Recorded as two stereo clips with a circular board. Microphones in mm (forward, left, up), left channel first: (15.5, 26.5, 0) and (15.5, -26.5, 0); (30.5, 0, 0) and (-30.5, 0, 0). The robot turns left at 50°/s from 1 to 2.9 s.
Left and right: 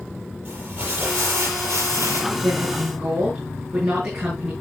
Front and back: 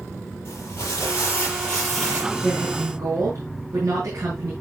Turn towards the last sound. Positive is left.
turn(degrees=-150)